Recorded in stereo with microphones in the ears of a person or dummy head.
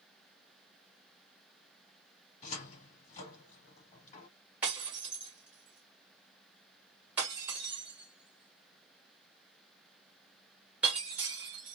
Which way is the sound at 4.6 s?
10° right (ahead or behind).